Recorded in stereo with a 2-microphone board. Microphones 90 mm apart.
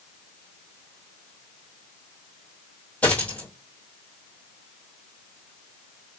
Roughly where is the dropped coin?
Centre.